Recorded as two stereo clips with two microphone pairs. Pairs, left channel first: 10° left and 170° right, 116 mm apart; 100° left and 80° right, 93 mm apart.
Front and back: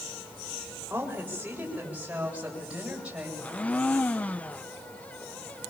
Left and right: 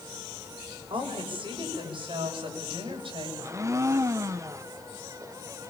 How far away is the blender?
About 0.7 m.